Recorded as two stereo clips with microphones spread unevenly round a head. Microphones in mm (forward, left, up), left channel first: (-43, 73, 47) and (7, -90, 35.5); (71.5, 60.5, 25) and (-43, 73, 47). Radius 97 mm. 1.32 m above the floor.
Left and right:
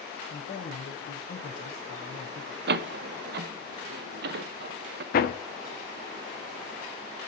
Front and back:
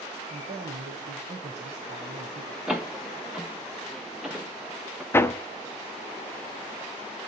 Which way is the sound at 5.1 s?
65° left.